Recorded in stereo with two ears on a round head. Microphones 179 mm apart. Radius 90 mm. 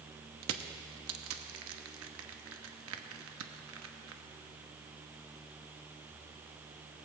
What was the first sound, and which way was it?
Crushing, 80° right.